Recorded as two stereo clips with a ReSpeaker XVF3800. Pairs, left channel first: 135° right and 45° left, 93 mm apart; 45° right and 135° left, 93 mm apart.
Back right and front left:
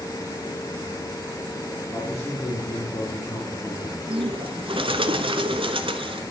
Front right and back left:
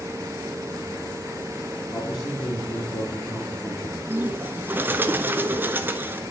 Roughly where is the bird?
Ahead left.